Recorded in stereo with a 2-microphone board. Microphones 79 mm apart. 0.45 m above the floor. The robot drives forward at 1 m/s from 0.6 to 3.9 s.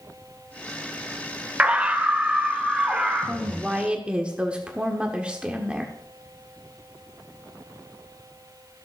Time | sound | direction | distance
1.6 | a scream | 15° right (ahead or behind) | 1.5 m
3.2 | a woman speaking | 15° right (ahead or behind) | 1.2 m